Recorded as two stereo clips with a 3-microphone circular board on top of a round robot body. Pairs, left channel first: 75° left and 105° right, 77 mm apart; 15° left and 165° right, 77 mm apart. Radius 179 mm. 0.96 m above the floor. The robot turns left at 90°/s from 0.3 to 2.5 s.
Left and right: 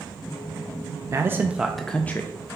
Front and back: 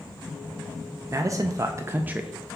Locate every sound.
1.1 s a man speaking: 135° right, 0.5 m; by 2.3 s 115° left, 0.5 m